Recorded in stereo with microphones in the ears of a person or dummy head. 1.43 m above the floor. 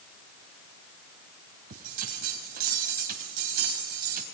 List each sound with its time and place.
1.7 s a bell: 55° right (ahead or behind), 4 m